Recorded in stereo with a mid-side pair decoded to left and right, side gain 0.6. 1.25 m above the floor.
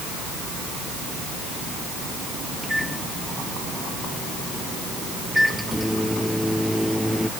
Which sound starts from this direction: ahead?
A microwave, at 2.6 s.